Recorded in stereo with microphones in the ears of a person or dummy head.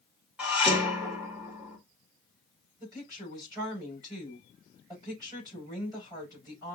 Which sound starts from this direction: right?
A woman speaking, at 2.8 s.